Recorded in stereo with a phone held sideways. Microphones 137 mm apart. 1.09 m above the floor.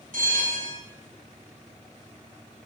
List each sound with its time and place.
0.1 s a bell: 80° right, 4 m